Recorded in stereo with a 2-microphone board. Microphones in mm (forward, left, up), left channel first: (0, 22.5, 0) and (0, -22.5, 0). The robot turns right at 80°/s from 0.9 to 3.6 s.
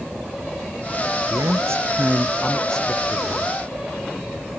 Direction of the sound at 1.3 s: 100° right.